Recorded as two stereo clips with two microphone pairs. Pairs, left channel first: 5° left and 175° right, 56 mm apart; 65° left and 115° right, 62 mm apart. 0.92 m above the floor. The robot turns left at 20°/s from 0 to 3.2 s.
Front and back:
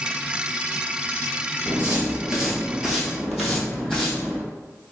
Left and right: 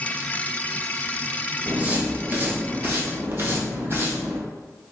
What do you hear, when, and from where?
1.7 s footsteps: 160° right, 1.0 m; by 4.4 s 80° right, 2 m